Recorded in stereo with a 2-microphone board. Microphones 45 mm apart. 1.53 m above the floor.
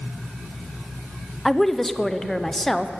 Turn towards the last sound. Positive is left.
turn(degrees=5)  # may be behind; listen again after turning